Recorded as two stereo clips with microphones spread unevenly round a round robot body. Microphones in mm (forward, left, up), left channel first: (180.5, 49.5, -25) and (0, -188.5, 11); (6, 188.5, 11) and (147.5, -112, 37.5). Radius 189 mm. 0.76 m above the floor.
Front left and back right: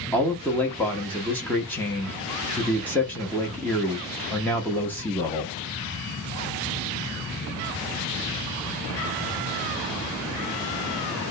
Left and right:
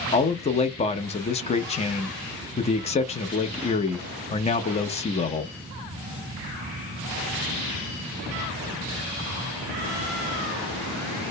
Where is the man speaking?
110° left, 0.5 m.